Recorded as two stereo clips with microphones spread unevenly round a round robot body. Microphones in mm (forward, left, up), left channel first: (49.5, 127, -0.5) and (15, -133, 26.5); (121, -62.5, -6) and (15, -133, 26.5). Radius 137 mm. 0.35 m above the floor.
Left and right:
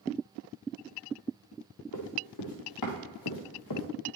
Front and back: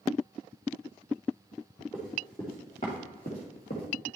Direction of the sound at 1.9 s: 115° left.